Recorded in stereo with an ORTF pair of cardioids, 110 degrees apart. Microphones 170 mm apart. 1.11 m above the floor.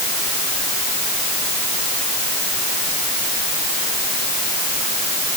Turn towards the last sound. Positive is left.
No sound to turn to.